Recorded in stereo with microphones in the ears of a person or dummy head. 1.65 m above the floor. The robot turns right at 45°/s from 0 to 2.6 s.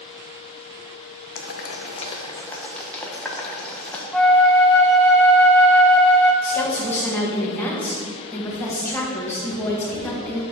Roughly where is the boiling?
Left.